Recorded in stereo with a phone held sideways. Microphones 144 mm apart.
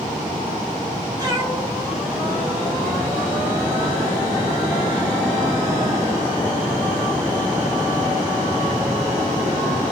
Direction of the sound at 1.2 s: 30° right (ahead or behind).